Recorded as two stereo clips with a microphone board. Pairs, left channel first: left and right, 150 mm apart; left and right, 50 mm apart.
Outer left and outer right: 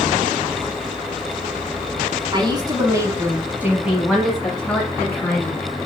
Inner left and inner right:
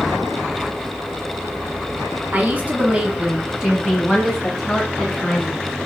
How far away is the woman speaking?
About 1.2 m.